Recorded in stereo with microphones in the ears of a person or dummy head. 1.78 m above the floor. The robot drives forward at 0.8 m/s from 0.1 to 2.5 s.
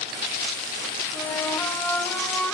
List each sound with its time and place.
1.1 s a flute: 10° left (ahead or behind), 1.5 m; by 2.5 s 5° left (ahead or behind), 2.5 m